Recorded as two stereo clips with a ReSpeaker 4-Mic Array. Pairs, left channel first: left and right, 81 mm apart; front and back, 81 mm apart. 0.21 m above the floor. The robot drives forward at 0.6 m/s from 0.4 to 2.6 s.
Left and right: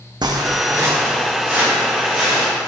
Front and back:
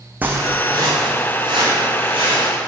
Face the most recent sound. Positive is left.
turn(degrees=-170)